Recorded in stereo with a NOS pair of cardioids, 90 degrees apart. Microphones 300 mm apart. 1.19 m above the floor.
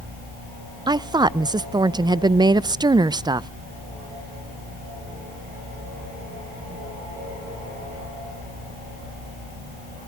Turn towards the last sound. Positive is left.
turn(degrees=-15)